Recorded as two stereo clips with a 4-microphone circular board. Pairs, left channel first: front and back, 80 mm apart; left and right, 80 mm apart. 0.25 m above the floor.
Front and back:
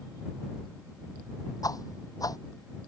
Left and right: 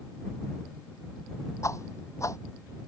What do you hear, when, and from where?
1.6 s a whoosh: 40° left